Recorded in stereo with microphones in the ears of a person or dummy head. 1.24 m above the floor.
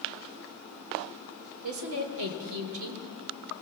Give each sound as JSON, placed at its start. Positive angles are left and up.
{"t": 1.6, "sound": "a woman speaking", "side_deg": -80, "distance_m": 3.0}